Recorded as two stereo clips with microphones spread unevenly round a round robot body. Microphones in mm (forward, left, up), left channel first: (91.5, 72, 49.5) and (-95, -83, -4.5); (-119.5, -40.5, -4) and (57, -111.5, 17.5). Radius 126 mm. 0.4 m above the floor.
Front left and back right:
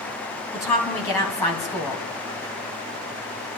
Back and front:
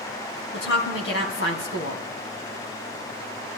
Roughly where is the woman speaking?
Behind left.